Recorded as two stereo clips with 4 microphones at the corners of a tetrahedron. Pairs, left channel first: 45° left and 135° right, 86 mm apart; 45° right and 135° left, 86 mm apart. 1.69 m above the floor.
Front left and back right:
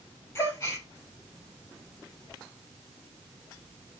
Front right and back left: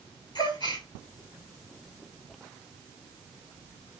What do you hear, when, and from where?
0.3 s a gasp: 15° right, 6 m